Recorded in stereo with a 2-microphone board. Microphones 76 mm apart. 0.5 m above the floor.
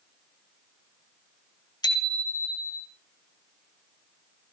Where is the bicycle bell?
70° left (ahead or behind), 3 m.